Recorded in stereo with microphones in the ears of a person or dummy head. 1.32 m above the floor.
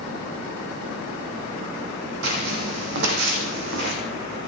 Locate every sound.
2.2 s footsteps: 60° right (ahead or behind), 3 m; by 4.0 s 55° right (ahead or behind), 3.5 m